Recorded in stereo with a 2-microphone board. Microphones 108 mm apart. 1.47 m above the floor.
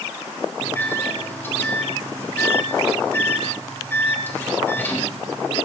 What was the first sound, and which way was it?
A microwave, 15° left (ahead or behind).